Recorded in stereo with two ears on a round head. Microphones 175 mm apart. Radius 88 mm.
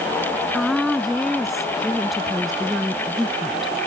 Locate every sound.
0.5 s a woman speaking: centre (ahead or behind)